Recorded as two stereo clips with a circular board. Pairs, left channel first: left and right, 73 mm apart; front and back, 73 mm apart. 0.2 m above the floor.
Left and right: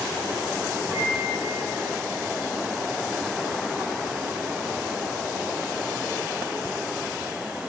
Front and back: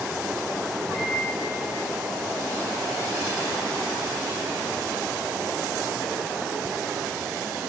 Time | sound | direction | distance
0.9 | a microwave | 145° right | 6.5 m